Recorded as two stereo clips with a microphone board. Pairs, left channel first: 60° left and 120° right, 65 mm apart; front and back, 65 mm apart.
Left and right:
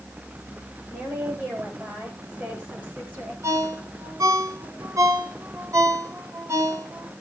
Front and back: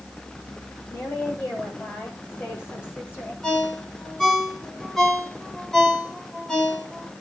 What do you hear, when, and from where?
0.9 s a woman speaking: 50° right, 8.5 m; by 3.3 s 60° right, 9.5 m
3.4 s a ringtone: 85° right, 6 m